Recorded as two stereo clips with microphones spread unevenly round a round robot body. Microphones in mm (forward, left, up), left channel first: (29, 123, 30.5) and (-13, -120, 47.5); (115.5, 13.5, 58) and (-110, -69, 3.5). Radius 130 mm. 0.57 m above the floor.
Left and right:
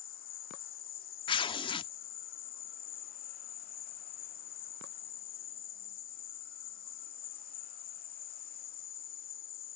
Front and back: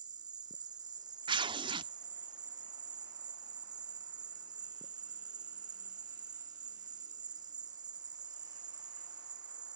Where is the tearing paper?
145° left.